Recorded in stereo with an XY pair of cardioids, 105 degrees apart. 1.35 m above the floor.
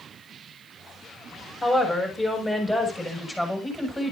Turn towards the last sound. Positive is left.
turn(degrees=15)